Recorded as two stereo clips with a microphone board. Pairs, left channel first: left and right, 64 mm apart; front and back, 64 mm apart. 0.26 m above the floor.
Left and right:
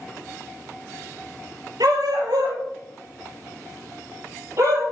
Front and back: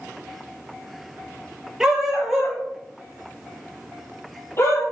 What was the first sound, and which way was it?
A dog barking, 100° right.